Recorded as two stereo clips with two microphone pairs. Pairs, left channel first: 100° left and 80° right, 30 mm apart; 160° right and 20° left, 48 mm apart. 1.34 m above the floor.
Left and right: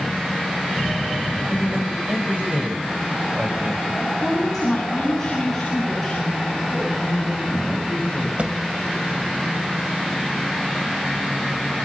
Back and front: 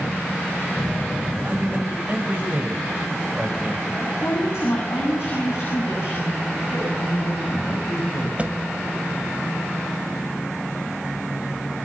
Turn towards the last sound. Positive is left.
turn(degrees=-35)